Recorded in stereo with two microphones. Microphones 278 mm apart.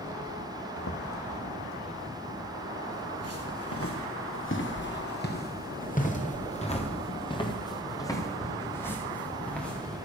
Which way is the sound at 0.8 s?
85° left.